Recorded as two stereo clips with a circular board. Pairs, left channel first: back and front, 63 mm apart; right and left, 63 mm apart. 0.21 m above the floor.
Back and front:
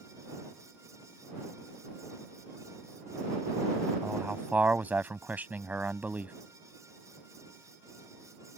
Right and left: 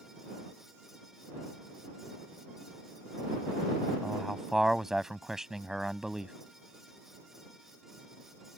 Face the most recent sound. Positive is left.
turn(degrees=15)